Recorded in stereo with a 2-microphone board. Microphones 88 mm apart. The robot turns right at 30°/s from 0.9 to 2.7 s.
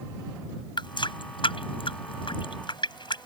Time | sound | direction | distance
0.8 | a running tap | 60° left (ahead or behind) | ?